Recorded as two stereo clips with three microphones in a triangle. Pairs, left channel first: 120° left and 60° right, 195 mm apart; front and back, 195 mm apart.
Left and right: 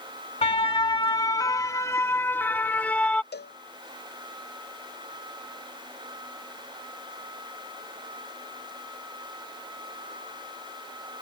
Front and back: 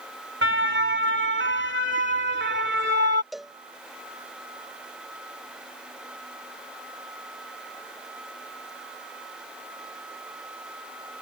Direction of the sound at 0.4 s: Straight behind.